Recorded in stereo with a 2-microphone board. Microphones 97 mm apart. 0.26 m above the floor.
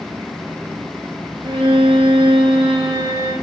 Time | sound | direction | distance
1.4 | a violin | 65° right (ahead or behind) | 4 m